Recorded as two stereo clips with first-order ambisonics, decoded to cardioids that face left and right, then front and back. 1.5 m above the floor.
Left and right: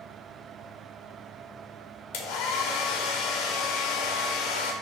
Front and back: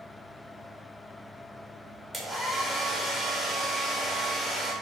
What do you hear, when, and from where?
2.1 s a hair dryer: 95° left, 0.5 m